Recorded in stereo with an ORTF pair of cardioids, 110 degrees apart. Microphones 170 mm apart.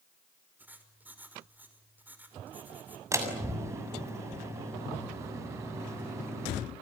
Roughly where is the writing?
Ahead.